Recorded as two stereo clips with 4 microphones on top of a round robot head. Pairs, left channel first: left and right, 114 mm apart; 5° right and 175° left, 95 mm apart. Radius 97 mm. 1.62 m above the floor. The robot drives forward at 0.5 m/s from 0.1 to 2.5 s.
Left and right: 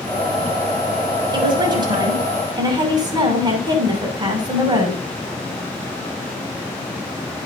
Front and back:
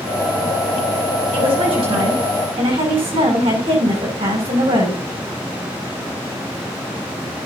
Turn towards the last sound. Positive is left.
turn(degrees=-145)